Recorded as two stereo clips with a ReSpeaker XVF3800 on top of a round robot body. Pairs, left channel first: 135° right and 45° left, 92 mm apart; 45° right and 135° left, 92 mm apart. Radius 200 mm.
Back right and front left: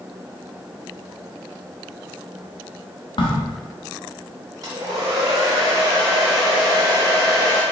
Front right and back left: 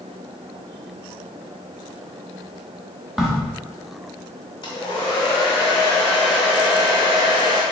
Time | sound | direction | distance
3.2 | a crack | 140° right | 0.8 m
4.6 | a hair dryer | 5° right | 0.6 m